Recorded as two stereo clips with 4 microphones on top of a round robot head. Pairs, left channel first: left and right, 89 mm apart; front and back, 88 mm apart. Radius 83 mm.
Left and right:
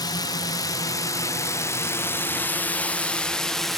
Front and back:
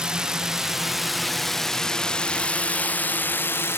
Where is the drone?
100° left; by 3.8 s 5° left.